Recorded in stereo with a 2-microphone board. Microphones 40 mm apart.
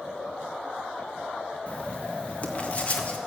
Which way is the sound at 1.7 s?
40° left (ahead or behind).